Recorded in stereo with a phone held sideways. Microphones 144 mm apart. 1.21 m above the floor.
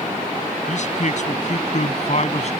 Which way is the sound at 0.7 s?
55° left (ahead or behind).